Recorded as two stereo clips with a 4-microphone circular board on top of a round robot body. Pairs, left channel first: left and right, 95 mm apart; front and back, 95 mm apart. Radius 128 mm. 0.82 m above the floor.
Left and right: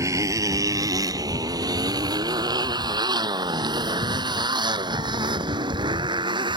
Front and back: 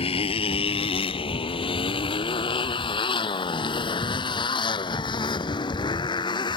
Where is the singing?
No singing in this recording.